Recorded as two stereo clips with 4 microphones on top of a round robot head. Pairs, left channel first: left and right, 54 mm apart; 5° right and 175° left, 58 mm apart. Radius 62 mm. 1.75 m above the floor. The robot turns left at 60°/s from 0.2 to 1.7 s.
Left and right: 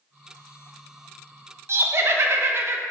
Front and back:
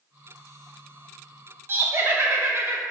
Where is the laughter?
130° right, 1.0 m.